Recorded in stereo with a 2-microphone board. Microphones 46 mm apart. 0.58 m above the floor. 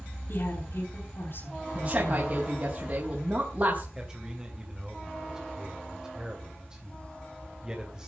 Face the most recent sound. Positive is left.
turn(degrees=-20)  # may be behind; listen again after turning